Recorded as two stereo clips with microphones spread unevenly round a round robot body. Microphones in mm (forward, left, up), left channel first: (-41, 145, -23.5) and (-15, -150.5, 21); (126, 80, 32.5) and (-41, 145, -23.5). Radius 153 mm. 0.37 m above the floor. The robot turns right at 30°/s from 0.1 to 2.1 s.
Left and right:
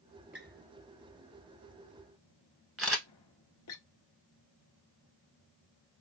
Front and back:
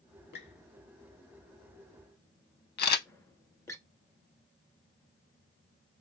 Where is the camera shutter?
Straight ahead, 0.6 m.